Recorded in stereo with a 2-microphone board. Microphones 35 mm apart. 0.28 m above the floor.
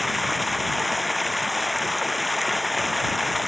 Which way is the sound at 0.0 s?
Centre (ahead or behind).